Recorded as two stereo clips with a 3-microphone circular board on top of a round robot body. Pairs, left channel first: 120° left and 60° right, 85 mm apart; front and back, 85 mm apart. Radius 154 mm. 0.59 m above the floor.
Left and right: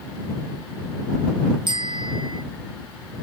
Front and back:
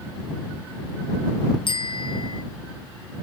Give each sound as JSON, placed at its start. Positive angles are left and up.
{"t": 1.7, "sound": "a bicycle bell", "azimuth_deg": -30}